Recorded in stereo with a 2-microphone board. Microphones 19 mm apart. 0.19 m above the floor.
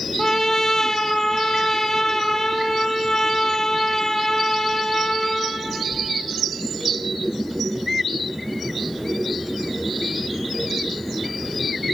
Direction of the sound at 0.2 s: 35° left (ahead or behind).